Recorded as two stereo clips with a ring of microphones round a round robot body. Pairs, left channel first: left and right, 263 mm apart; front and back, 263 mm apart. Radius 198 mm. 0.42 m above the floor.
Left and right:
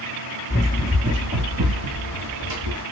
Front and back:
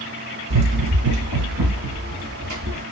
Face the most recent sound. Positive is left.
turn(degrees=-120)